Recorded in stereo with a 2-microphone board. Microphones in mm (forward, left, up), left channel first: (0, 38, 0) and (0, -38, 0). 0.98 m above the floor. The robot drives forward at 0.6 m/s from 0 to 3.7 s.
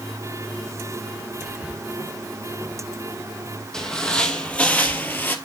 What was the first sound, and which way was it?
Whispering, 15° right (ahead or behind).